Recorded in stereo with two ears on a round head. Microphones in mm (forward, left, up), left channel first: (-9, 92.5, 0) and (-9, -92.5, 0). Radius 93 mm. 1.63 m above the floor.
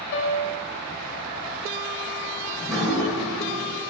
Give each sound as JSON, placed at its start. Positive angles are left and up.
{"t": 0.1, "sound": "a piano", "side_deg": 65, "distance_m": 1.2}
{"t": 2.5, "sound": "dripping", "side_deg": 0, "distance_m": 2.5}